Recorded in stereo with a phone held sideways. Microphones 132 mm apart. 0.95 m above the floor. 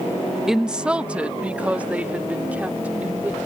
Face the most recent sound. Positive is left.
turn(degrees=-10)  # may be behind; listen again after turning